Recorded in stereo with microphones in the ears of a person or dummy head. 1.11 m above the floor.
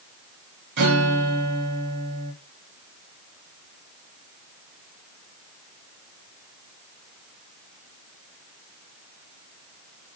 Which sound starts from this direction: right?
A guitar, at 0.8 s.